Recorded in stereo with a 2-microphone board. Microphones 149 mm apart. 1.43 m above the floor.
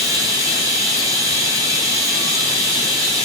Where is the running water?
20° right (ahead or behind), 1.2 m.